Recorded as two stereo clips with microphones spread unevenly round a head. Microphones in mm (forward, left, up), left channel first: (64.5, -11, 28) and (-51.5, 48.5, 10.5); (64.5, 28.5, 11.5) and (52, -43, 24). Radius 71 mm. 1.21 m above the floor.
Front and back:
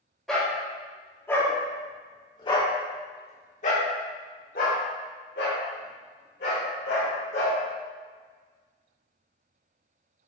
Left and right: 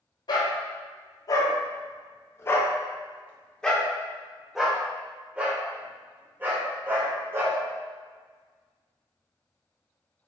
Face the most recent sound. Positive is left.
turn(degrees=-45)